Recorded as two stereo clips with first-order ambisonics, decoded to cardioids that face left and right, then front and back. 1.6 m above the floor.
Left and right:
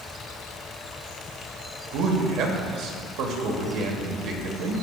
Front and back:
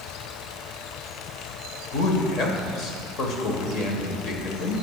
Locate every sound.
1.9 s a man speaking: 50° right, 1.5 m